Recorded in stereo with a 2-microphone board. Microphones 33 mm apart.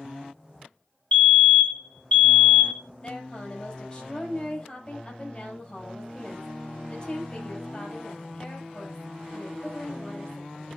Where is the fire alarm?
40° left (ahead or behind), 4 m.